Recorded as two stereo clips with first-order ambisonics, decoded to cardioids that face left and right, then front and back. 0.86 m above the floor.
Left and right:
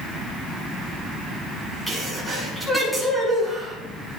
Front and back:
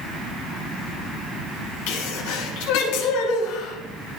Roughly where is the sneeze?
Ahead.